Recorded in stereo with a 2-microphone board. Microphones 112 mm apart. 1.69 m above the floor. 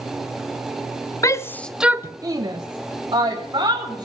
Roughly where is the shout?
Left.